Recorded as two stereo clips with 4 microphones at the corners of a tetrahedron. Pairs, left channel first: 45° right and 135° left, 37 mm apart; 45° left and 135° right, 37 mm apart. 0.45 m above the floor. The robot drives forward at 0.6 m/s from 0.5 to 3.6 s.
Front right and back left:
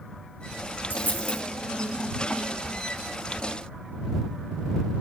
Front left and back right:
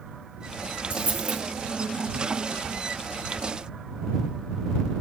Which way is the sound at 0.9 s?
75° right.